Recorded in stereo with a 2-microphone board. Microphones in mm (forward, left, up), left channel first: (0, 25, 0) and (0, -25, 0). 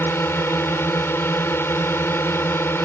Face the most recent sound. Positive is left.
turn(degrees=55)  # may be behind; listen again after turning